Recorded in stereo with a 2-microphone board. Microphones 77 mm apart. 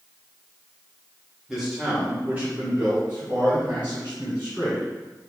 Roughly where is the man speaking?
Centre.